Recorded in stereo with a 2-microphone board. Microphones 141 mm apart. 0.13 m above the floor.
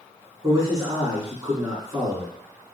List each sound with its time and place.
0.4 s a man speaking: 25° right (ahead or behind), 1.8 m